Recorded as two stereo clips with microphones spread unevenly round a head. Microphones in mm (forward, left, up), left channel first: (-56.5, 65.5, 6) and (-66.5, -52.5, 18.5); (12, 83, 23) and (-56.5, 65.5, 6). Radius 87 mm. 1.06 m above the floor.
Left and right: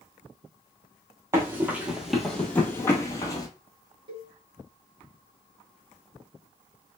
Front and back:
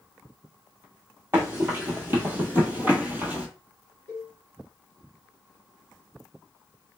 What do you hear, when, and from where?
1.3 s running footsteps: 100° right, 1.1 m; by 3.5 s 120° left, 1.2 m
4.1 s a cowbell: 125° right, 1.5 m